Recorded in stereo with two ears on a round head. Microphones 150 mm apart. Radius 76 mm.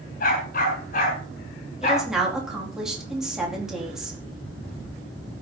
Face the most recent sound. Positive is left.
turn(degrees=-5)  # may be behind; listen again after turning